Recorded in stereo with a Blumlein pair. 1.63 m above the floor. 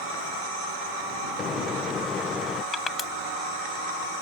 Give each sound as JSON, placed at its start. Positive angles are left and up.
{"t": 1.4, "sound": "a microwave", "azimuth_deg": 20}
{"t": 2.7, "sound": "crushing", "azimuth_deg": 20}